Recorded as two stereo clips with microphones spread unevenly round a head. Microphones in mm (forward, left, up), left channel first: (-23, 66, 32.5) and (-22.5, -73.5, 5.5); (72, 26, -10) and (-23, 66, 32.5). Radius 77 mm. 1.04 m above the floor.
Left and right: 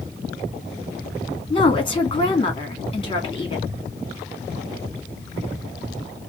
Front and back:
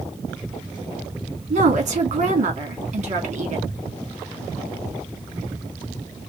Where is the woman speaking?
145° left, 2.5 m.